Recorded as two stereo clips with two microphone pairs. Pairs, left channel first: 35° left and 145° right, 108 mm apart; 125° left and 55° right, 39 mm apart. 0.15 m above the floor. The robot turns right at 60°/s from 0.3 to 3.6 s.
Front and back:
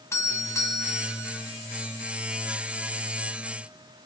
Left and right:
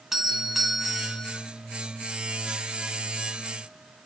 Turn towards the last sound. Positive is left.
turn(degrees=-155)